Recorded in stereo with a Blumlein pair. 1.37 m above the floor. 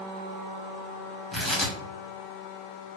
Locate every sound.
1.3 s tearing paper: 10° left, 1.1 m